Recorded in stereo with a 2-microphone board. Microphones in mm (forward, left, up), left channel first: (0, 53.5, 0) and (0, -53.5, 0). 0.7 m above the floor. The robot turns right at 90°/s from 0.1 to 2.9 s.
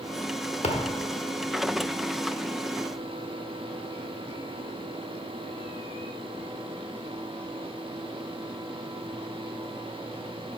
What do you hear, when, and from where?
0.6 s a thud: 75° left (ahead or behind), 0.8 m; by 1.0 s 45° left (ahead or behind), 0.8 m